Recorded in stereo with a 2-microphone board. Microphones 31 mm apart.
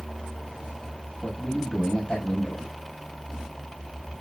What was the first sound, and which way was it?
A man speaking, 35° left (ahead or behind).